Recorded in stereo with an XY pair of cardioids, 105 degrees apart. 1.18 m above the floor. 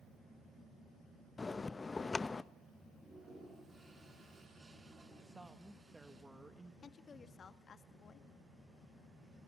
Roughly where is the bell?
Ahead left.